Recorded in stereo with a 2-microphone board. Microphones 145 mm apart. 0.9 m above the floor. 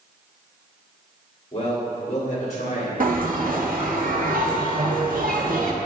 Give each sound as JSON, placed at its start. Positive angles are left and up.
{"t": 1.5, "sound": "a man speaking", "side_deg": 40, "distance_m": 2.0}
{"t": 3.0, "sound": "a bell", "side_deg": -70, "distance_m": 0.9}